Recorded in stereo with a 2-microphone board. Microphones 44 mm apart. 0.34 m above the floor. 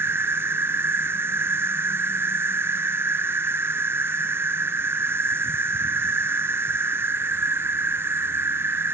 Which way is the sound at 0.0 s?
70° right (ahead or behind).